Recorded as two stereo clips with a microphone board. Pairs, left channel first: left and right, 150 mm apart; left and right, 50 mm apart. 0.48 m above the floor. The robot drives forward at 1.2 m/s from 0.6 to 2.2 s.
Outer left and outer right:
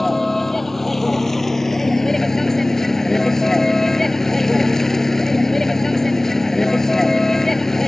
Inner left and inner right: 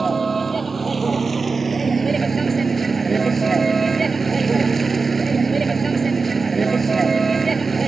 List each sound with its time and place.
0.0 s a vehicle: centre (ahead or behind); by 7.9 s 5° left (ahead or behind)